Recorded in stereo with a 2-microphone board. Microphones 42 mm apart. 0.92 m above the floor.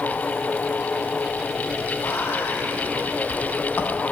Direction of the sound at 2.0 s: 60° left (ahead or behind).